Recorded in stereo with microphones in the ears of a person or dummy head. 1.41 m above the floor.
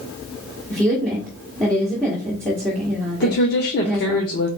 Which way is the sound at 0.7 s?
Centre (ahead or behind).